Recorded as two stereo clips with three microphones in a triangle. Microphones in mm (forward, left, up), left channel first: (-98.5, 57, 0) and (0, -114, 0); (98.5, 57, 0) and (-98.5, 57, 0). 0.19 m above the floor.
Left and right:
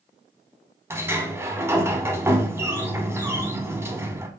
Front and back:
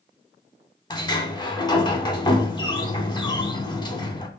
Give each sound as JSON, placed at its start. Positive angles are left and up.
{"t": 0.9, "sound": "a sliding door", "azimuth_deg": -5, "distance_m": 0.7}